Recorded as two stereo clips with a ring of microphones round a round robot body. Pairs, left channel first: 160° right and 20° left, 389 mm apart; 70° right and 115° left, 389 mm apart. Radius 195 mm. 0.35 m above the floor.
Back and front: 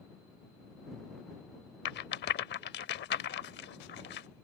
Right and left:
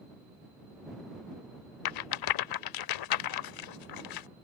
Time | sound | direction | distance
1.9 | a rattle | 95° right | ?